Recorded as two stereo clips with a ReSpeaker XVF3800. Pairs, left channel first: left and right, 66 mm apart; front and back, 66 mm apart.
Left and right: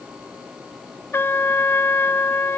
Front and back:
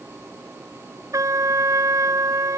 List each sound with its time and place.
1.1 s a trumpet: 145° left